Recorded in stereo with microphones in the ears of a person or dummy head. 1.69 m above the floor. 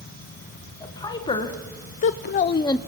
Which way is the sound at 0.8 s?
20° left (ahead or behind).